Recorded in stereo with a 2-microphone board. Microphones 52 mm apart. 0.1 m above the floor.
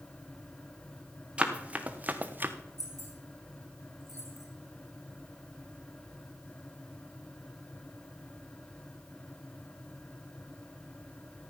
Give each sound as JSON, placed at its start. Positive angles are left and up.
{"t": 1.4, "sound": "running footsteps", "side_deg": -20, "distance_m": 1.8}
{"t": 2.8, "sound": "keys jangling", "side_deg": 65, "distance_m": 5.5}